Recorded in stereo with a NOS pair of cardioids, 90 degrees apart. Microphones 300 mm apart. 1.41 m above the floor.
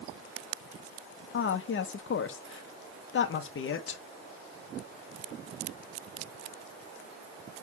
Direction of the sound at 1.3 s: 45° left.